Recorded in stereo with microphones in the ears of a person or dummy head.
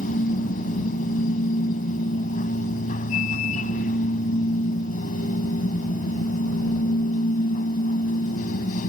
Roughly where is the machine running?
Left.